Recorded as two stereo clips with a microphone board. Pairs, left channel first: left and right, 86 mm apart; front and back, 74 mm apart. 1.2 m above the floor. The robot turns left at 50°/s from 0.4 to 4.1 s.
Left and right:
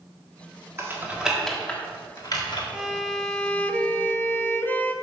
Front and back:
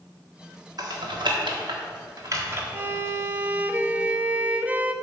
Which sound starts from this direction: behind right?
Typing on a keyboard, at 0.8 s.